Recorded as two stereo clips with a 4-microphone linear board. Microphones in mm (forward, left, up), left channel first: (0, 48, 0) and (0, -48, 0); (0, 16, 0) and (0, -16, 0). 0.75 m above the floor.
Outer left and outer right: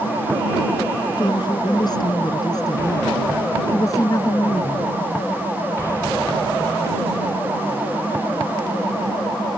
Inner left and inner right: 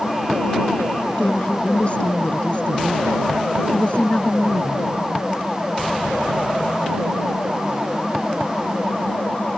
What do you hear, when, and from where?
1.2 s a woman speaking: 45° left (ahead or behind); by 4.8 s 35° left (ahead or behind)